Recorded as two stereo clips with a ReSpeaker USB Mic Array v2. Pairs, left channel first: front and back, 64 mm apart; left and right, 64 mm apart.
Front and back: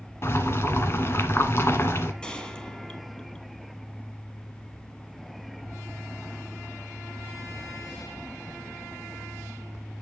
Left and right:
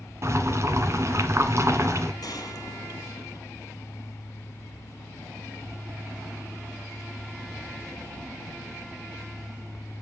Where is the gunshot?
70° left, 2.0 m.